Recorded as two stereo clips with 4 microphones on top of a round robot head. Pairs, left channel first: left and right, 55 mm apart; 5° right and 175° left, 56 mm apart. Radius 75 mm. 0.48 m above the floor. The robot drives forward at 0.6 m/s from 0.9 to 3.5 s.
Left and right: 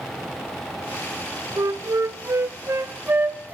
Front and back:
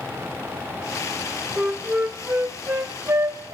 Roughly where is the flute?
Right.